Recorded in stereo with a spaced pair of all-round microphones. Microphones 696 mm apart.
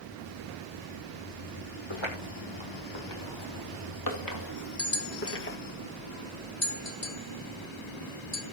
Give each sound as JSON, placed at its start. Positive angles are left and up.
{"t": 1.9, "sound": "footsteps", "side_deg": 40, "distance_m": 3.5}
{"t": 4.8, "sound": "a bell", "side_deg": 75, "distance_m": 2.0}